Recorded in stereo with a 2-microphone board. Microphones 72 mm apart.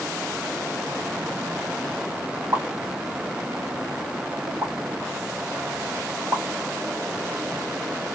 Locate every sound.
2.5 s a pop: 45° right (ahead or behind), 1.6 m